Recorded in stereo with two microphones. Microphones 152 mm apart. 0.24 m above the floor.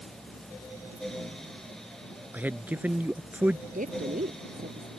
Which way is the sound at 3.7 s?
60° right (ahead or behind).